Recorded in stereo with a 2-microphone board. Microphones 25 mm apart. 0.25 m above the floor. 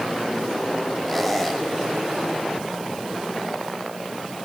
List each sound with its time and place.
1.1 s a squeak: 5° left (ahead or behind), 6.5 m